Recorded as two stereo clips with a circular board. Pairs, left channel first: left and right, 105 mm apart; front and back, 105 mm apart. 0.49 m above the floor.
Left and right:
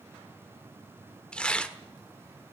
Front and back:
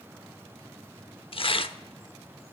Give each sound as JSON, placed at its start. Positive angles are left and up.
{"t": 1.3, "sound": "tearing paper", "azimuth_deg": 10, "distance_m": 0.7}